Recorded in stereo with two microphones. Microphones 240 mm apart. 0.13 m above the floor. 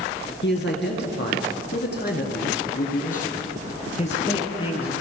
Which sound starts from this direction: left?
A man speaking, at 0.4 s.